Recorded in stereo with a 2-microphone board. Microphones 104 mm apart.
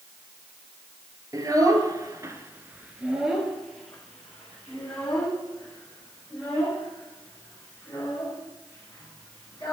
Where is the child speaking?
35° right (ahead or behind), 1.3 m; by 9.7 s 15° left (ahead or behind), 6.5 m.